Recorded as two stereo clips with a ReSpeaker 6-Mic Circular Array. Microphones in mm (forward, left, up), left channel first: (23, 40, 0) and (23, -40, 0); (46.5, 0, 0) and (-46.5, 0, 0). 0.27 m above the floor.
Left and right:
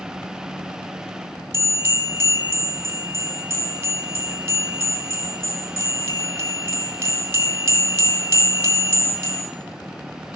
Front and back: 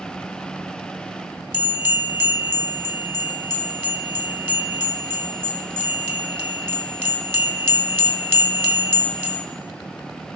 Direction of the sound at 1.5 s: 125° right.